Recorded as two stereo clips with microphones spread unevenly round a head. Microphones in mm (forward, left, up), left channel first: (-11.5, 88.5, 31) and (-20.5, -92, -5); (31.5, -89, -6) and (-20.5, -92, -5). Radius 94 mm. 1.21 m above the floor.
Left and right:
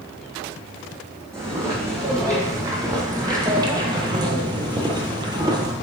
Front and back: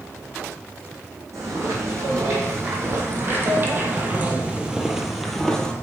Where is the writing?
No writing in this recording.